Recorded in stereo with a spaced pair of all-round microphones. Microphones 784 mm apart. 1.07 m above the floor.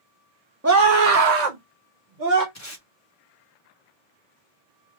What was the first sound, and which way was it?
A scream, 20° right (ahead or behind).